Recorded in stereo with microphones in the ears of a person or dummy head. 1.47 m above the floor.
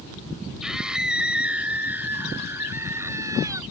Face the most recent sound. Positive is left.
turn(degrees=-20)  # may be behind; listen again after turning